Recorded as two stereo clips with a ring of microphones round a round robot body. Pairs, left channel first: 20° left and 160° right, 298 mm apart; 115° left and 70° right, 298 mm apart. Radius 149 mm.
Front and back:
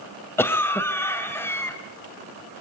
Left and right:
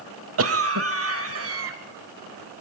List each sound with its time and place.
0.4 s a cough: 55° right, 1.3 m